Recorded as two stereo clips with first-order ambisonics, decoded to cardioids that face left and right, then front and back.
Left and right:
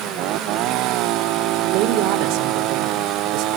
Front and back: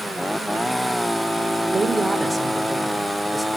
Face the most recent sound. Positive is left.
turn(degrees=-85)